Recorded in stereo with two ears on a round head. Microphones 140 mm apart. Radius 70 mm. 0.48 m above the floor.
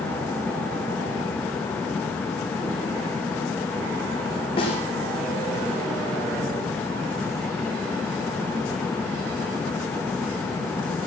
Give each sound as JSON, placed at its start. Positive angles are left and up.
{"t": 4.6, "sound": "a snare drum", "side_deg": 35, "distance_m": 6.5}